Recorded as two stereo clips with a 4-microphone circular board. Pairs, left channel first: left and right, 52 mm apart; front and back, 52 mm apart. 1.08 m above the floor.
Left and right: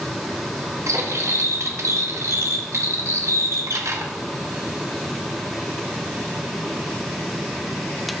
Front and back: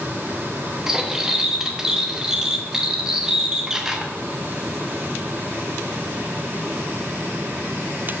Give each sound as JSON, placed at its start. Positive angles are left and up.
{"t": 0.9, "sound": "cutlery clinking", "azimuth_deg": -100, "distance_m": 0.7}